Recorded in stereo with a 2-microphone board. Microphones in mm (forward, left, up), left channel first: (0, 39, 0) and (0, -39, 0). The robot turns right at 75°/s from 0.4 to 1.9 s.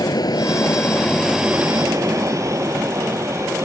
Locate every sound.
0.0 s an aircraft: 55° left (ahead or behind); by 3.6 s 40° right (ahead or behind)